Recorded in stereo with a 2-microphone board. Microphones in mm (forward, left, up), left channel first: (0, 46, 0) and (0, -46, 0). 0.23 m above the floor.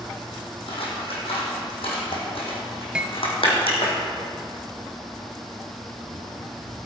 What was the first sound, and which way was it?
Scissors, 85° left.